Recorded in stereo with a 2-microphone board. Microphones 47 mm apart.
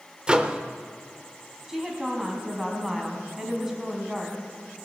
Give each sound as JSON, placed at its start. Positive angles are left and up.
{"t": 0.3, "sound": "a microwave", "side_deg": -20, "distance_m": 0.7}
{"t": 1.7, "sound": "a woman speaking", "side_deg": -5, "distance_m": 2.5}